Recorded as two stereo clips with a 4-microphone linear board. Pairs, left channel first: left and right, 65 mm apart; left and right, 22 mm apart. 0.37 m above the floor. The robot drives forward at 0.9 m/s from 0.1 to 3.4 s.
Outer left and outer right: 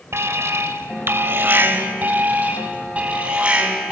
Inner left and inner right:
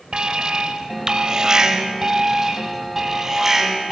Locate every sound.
0.1 s an alarm: 45° right (ahead or behind), 1.7 m; by 3.9 s 20° right (ahead or behind), 3.5 m